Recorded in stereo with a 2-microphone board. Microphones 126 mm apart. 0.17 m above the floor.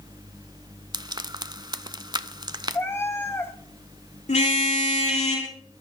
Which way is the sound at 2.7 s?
20° left (ahead or behind).